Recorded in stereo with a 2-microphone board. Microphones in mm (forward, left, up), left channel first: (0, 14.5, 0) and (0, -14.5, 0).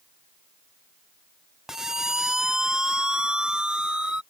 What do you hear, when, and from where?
1.7 s a siren: 15° right (ahead or behind); by 4.2 s 30° right (ahead or behind)